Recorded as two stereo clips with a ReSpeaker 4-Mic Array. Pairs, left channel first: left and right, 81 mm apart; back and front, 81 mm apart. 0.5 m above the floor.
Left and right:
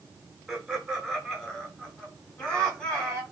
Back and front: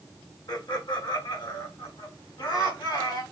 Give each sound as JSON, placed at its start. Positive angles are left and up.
{"t": 0.5, "sound": "laughter", "azimuth_deg": -175, "distance_m": 2.0}